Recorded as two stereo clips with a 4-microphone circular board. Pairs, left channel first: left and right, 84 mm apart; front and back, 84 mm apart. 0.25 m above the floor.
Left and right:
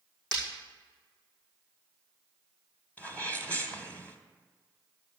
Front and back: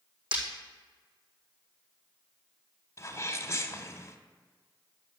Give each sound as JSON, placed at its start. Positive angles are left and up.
{"t": 0.3, "sound": "breaking glass", "azimuth_deg": 170, "distance_m": 5.5}
{"t": 3.0, "sound": "a sneeze", "azimuth_deg": 30, "distance_m": 1.3}